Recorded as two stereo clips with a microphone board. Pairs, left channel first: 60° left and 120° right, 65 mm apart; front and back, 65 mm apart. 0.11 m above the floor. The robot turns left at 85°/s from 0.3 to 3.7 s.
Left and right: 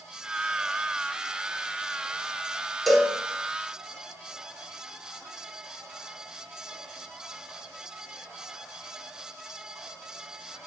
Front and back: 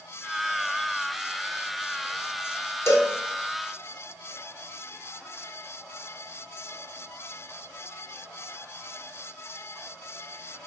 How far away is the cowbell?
About 0.7 m.